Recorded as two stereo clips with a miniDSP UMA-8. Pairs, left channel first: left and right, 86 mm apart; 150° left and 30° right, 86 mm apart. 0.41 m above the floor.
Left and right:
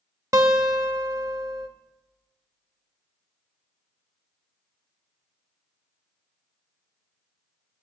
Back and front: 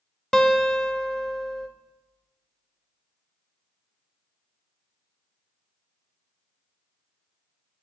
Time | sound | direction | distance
0.3 | a guitar | 125° right | 0.8 m